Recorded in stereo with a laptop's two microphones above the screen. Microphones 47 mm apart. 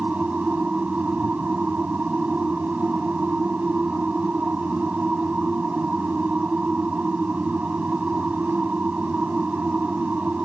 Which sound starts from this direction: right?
A machine running, at 0.0 s.